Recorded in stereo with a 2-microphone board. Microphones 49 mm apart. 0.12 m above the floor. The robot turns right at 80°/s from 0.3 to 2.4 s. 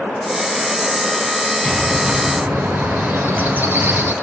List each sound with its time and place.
1.6 s a bird: 165° left, 2.5 m; by 4.1 s 130° right, 2.5 m